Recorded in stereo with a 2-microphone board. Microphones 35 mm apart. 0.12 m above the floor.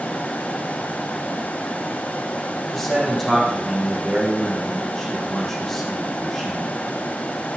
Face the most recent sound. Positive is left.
turn(degrees=10)  # may be behind; listen again after turning